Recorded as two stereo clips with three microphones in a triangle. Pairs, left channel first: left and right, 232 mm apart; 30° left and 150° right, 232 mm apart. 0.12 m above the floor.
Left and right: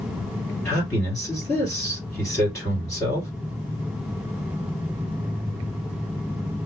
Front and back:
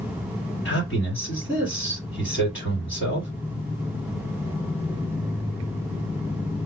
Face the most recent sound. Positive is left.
turn(degrees=20)